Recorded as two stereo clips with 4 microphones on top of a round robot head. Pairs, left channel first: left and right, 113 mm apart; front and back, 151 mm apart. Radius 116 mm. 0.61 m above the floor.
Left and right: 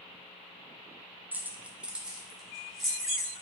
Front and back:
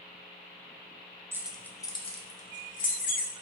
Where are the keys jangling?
140° right, 0.5 m; by 3.3 s straight ahead, 1.3 m.